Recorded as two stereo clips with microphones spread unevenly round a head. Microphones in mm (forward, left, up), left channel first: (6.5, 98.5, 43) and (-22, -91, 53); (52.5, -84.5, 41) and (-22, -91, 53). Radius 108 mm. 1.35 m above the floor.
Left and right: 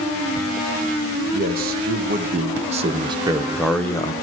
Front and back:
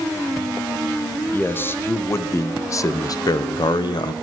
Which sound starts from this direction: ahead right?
A man speaking, at 1.3 s.